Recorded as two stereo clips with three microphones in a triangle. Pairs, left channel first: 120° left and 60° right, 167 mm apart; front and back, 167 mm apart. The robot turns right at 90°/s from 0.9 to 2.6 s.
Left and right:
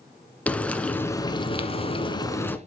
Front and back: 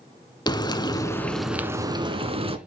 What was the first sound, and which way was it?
Frying, 45° left.